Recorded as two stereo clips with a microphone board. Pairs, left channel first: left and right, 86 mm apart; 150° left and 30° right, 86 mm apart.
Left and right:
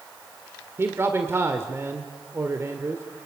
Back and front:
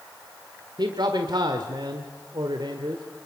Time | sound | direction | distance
0.8 | a man speaking | 35° right | 1.7 m